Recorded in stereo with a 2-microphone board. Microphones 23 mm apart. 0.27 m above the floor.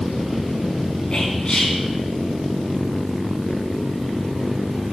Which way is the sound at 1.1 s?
50° left (ahead or behind).